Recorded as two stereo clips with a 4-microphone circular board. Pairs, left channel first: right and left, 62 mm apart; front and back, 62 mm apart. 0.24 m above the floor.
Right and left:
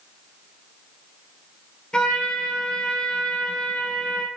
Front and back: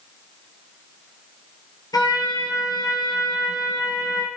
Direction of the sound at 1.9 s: 10° right.